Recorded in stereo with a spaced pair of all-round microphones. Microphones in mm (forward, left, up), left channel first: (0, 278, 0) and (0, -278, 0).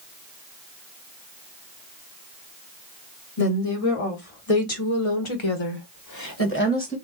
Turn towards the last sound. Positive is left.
turn(degrees=10)  # may be behind; listen again after turning